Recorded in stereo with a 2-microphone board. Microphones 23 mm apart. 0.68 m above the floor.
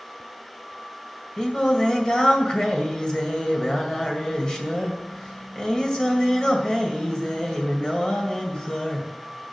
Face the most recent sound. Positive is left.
turn(degrees=40)  # may be behind; listen again after turning